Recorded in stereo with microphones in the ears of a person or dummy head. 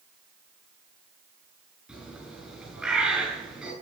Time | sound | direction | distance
1.9 | a bird | 5° right (ahead or behind) | 7.5 m